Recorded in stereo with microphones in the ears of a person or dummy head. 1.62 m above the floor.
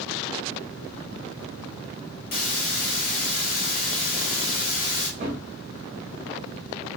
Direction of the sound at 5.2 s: 35° right (ahead or behind).